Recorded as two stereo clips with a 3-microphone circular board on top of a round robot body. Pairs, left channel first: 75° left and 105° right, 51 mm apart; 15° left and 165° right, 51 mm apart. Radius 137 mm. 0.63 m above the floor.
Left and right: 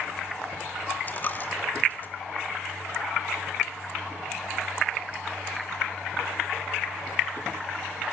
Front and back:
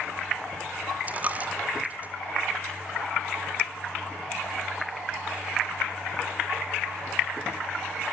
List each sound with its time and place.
1.1 s a dropped coin: 135° left, 0.6 m